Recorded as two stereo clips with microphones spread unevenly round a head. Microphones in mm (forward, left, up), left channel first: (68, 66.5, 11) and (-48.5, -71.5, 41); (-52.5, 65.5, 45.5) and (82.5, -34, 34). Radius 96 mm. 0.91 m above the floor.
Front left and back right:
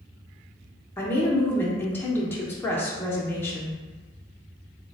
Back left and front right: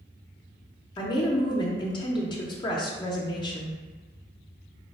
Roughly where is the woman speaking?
Left.